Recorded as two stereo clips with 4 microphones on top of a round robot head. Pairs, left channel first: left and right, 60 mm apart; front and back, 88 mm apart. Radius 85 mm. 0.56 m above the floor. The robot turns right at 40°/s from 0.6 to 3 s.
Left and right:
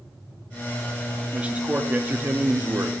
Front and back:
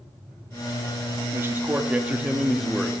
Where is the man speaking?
145° right, 0.9 m; by 2.9 s 85° right, 0.9 m.